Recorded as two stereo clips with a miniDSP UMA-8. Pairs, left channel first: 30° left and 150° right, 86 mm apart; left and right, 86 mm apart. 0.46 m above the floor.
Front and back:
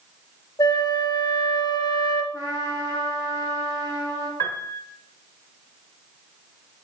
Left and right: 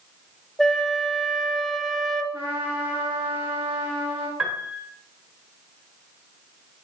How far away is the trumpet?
About 3 m.